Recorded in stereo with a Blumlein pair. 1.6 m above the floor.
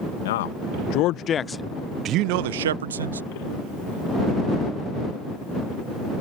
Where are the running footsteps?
I don't hear running footsteps.